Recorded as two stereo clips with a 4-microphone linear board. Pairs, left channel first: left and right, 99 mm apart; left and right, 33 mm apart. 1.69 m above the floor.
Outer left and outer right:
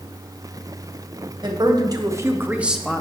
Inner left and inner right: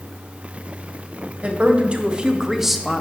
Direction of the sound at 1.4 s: 45° right (ahead or behind).